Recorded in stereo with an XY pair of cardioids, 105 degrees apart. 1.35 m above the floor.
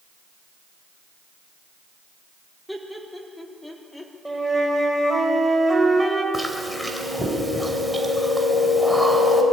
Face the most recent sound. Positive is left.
turn(degrees=0)